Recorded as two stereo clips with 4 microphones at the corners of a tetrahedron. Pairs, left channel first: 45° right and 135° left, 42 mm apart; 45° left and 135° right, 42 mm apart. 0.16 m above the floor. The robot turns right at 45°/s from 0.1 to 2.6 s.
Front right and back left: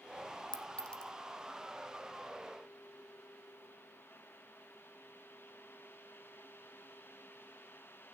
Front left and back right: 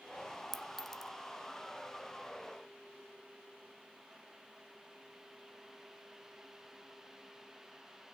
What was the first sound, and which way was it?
A clink, 45° right.